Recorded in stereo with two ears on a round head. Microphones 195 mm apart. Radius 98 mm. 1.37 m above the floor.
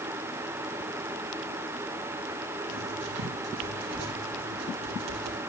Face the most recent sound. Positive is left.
turn(degrees=-80)